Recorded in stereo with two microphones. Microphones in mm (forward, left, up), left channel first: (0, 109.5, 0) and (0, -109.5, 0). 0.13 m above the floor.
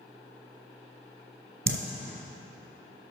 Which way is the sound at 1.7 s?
65° right (ahead or behind).